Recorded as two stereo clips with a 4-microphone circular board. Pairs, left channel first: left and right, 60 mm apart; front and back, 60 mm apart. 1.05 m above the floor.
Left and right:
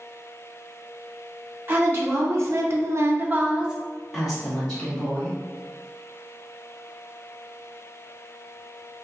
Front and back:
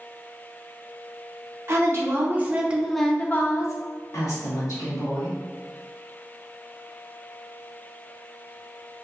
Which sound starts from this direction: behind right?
A woman speaking, at 1.7 s.